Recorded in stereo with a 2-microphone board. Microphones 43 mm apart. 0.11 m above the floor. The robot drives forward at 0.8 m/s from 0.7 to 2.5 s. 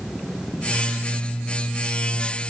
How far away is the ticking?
No ticking in this recording.